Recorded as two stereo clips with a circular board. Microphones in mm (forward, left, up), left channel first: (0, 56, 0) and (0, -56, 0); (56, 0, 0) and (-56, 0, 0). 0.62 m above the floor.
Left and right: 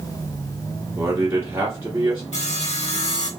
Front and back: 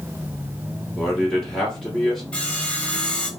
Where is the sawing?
80° left, 0.8 m.